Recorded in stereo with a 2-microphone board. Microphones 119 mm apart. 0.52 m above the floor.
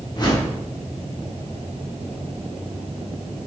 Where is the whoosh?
35° left (ahead or behind), 0.8 m.